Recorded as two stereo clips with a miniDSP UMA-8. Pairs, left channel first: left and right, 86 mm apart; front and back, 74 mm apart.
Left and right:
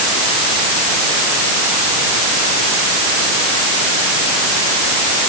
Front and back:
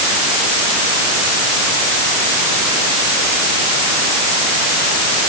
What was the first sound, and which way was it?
Only background noise.